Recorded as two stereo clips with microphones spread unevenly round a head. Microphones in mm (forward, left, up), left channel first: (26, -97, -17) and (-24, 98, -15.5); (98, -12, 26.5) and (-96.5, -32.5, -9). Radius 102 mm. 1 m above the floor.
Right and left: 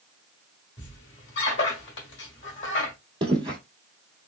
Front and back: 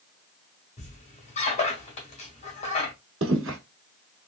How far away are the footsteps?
About 1.5 m.